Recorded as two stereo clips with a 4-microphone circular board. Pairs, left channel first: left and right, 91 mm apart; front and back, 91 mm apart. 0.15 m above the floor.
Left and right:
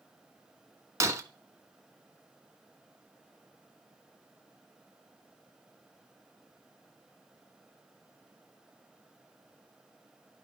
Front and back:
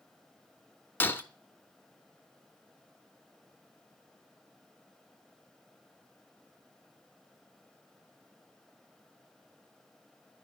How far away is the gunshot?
I don't hear a gunshot.